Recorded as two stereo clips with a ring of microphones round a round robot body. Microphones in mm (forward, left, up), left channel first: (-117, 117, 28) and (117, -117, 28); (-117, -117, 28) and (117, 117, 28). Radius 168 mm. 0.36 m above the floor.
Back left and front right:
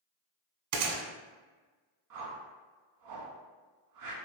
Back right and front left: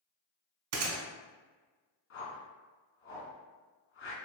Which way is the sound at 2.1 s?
80° right.